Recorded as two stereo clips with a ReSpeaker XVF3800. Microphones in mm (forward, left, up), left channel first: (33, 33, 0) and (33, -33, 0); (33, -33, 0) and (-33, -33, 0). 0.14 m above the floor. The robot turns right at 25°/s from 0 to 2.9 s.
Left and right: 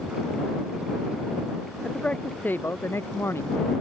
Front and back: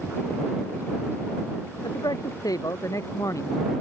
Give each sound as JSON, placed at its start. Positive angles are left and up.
{"t": 1.8, "sound": "a man speaking", "azimuth_deg": 15}